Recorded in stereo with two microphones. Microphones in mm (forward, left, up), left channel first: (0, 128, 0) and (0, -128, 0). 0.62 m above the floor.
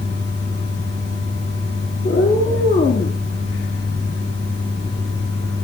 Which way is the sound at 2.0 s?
45° left (ahead or behind).